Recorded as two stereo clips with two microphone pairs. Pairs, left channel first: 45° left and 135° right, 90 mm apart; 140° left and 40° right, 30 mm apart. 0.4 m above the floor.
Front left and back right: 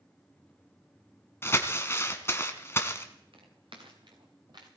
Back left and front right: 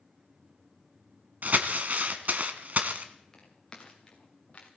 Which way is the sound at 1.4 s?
20° right.